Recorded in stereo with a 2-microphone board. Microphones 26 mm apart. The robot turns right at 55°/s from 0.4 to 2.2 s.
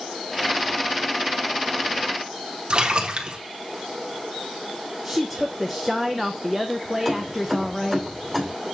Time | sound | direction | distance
2.7 | a splash | 40° right (ahead or behind) | 1.0 m
5.0 | a woman speaking | centre (ahead or behind) | 0.5 m
7.0 | keys jangling | 15° left (ahead or behind) | 2.5 m